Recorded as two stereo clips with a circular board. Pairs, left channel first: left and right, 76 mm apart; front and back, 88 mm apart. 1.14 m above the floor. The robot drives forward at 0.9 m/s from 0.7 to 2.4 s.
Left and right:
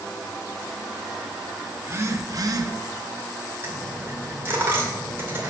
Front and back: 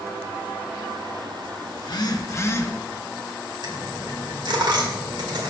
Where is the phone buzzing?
30° right, 1.2 m; by 2.7 s 60° right, 0.8 m.